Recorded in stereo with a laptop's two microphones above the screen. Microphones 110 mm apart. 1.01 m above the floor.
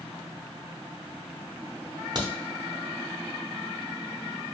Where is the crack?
40° right (ahead or behind), 0.7 m.